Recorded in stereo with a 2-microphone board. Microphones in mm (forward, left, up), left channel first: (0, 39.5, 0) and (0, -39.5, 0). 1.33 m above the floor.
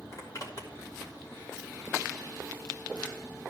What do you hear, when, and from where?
0.1 s a zipper: 50° left (ahead or behind), 2 m